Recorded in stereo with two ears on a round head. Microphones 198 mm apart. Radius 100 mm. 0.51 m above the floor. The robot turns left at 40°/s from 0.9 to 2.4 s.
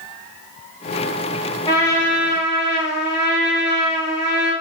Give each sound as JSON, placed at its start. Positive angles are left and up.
{"t": 1.7, "sound": "a trumpet", "side_deg": 25, "distance_m": 1.0}